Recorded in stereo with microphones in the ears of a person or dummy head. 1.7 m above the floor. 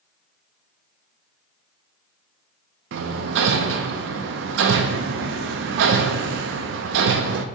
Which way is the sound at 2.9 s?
60° right (ahead or behind).